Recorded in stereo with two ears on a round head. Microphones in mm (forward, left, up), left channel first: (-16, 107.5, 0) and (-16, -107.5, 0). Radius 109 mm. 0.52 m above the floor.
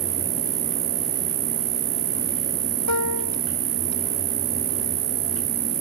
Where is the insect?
40° right (ahead or behind).